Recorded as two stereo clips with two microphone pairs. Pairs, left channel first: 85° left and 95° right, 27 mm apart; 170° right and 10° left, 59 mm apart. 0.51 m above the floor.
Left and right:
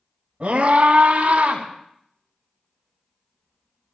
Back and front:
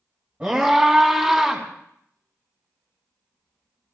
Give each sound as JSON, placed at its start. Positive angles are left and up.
{"t": 0.4, "sound": "a scream", "azimuth_deg": -55, "distance_m": 4.0}